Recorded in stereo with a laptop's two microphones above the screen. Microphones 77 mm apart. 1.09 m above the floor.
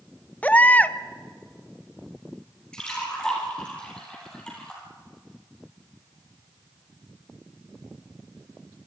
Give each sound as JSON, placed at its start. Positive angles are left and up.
{"t": 0.4, "sound": "a baby crying", "side_deg": 20, "distance_m": 0.6}
{"t": 2.7, "sound": "a splash", "side_deg": 10, "distance_m": 5.0}